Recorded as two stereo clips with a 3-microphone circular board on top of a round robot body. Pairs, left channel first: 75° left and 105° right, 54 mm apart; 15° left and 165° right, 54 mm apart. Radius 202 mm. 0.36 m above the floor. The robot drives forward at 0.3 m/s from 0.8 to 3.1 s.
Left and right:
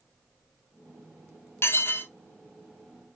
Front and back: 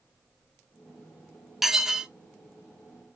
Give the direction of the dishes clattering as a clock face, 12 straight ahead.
8 o'clock.